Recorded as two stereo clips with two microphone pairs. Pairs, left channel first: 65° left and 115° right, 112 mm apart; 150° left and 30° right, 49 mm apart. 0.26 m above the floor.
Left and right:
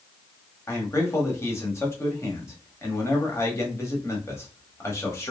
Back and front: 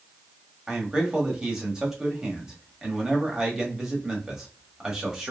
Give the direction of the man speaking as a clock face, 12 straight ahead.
11 o'clock.